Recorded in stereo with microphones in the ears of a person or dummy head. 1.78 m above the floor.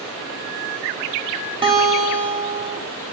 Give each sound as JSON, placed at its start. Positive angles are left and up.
{"t": 1.6, "sound": "a guitar", "side_deg": -25, "distance_m": 3.5}